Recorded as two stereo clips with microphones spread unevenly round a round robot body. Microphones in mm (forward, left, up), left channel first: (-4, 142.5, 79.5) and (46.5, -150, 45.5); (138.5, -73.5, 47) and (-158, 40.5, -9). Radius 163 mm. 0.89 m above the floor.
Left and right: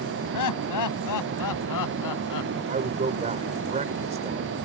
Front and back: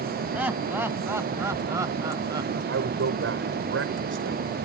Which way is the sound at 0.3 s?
75° left.